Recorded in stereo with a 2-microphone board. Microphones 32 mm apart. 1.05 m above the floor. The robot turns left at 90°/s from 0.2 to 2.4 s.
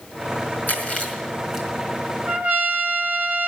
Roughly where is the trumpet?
Right.